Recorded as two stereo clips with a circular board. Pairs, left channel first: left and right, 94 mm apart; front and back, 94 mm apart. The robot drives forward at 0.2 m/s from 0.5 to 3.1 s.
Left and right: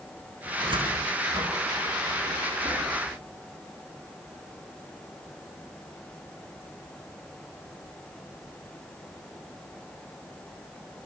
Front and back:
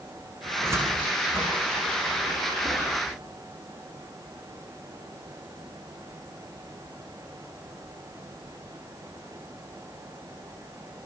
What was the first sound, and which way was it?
A cupboard door, 120° right.